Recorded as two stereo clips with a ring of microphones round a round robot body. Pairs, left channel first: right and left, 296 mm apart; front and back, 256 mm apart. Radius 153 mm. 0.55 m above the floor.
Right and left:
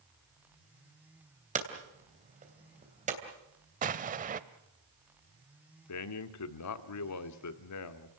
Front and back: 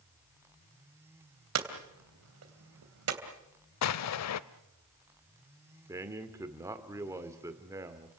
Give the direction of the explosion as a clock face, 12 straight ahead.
11 o'clock.